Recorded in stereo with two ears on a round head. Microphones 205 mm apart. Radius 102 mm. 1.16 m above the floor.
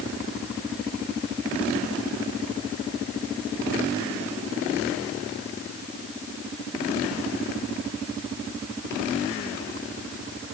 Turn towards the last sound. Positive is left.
No sound to turn to.